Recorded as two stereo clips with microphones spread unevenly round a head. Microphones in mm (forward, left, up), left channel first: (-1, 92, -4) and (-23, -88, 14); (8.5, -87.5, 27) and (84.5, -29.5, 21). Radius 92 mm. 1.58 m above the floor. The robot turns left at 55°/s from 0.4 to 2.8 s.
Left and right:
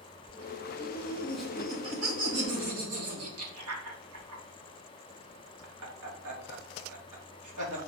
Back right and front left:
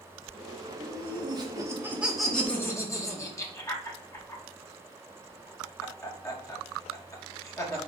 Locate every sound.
0.8 s laughter: 25° left, 2.5 m; by 7.8 s 85° right, 2.5 m